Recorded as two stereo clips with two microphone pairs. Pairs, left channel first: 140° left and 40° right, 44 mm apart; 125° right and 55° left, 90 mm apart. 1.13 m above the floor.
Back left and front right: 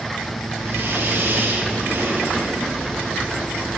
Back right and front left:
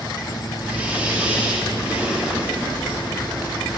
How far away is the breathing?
About 2.5 m.